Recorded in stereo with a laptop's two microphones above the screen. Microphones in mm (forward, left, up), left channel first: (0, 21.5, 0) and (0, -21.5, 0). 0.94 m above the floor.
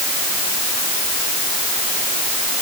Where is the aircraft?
No aircraft in this recording.